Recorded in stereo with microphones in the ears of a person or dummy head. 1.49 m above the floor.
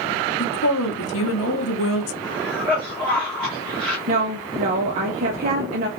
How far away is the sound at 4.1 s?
About 0.5 m.